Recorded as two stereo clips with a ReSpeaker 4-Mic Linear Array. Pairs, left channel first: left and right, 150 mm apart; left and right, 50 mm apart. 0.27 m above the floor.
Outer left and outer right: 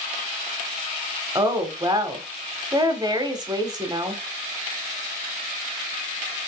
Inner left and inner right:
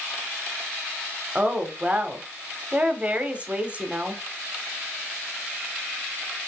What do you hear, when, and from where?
1.4 s a woman speaking: 25° right (ahead or behind), 1.0 m